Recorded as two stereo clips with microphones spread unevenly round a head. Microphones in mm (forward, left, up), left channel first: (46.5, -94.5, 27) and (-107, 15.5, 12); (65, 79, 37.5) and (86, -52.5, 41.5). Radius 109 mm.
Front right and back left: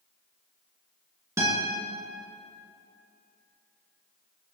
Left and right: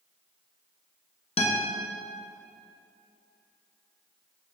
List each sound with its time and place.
1.4 s a guitar: 65° left, 2.5 m